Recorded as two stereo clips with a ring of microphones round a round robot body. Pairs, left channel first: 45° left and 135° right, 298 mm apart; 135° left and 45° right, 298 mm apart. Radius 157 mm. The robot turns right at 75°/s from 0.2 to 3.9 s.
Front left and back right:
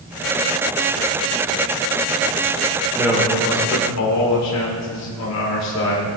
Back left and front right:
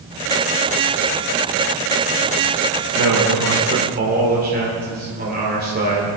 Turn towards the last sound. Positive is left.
turn(degrees=15)